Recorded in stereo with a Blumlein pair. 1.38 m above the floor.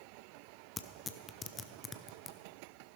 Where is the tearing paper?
15° left, 0.5 m.